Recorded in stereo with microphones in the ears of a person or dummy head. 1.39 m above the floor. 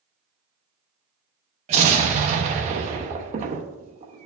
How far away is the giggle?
I don't hear a giggle.